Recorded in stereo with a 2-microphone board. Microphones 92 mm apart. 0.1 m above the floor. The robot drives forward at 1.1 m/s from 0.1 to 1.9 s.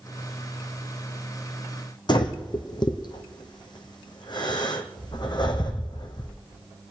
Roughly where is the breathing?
Left.